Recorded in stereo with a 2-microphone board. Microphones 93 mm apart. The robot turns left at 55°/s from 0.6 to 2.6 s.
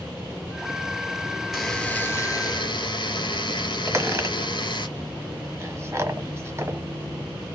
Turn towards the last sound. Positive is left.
turn(degrees=-30)  # may be behind; listen again after turning